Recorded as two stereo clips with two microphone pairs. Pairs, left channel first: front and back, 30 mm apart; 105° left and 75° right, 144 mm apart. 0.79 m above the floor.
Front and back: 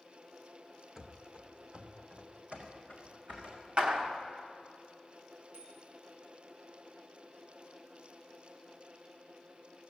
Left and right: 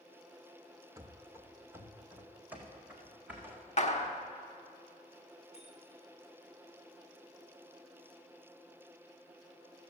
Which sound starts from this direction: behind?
A bicycle bell, at 5.5 s.